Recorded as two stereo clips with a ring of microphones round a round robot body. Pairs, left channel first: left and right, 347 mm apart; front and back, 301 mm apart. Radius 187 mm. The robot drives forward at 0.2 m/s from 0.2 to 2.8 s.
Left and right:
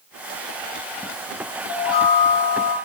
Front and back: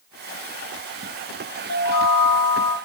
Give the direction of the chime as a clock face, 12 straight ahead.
10 o'clock.